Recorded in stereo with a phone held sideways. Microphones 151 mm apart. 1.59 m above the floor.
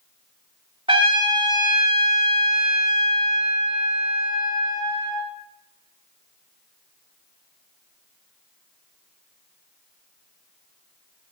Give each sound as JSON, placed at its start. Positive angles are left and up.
{"t": 0.9, "sound": "a trumpet", "side_deg": -35, "distance_m": 2.5}